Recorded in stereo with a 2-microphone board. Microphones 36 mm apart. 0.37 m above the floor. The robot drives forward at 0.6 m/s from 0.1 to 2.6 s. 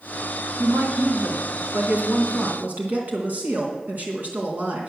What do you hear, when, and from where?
0.6 s a woman speaking: 65° right (ahead or behind), 3 m; by 4.9 s 50° right (ahead or behind), 3.5 m